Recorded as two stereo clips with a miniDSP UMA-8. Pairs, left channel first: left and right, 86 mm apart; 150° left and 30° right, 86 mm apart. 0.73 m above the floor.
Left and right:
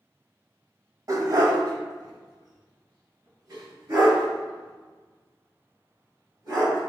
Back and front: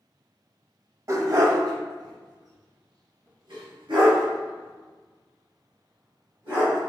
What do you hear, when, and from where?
1.1 s a dog barking: 65° right, 0.7 m; by 6.8 s 45° right, 4 m